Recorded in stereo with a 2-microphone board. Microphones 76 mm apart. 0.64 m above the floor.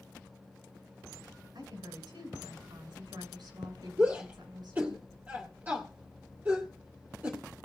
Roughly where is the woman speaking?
Right.